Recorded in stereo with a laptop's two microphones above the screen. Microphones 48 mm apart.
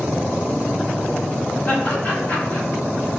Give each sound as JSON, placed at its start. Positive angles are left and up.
{"t": 1.7, "sound": "laughter", "side_deg": 30, "distance_m": 1.1}